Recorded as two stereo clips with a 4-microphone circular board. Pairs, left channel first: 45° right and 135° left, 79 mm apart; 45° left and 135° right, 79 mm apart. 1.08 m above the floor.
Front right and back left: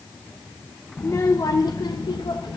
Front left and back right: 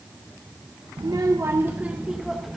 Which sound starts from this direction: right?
A child speaking, at 1.0 s.